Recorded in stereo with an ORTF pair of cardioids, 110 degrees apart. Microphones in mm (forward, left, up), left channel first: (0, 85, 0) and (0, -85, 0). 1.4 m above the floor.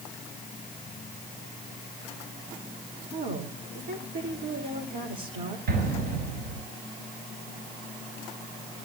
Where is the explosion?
55° right, 8.5 m.